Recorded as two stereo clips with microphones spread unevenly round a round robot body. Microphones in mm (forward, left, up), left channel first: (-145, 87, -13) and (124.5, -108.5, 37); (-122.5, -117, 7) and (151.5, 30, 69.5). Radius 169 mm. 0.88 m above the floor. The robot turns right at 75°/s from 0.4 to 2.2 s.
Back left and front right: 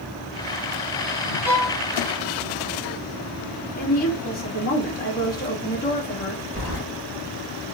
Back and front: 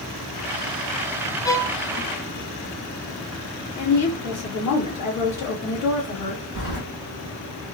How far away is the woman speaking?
About 1.5 m.